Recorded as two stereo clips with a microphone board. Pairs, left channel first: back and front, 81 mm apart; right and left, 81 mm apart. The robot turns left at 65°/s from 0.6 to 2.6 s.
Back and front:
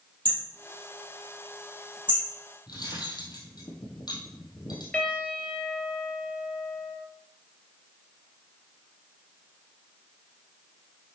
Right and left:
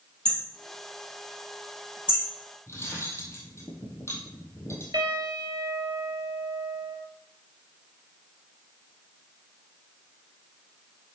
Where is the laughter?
I don't hear laughter.